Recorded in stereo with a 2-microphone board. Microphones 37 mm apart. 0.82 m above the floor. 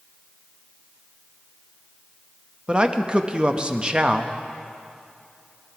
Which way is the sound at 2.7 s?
25° right (ahead or behind).